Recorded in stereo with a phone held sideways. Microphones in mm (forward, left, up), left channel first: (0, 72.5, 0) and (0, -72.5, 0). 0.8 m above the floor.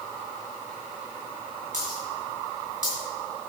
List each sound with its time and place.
1.7 s a dropped coin: 60° right (ahead or behind), 5.5 m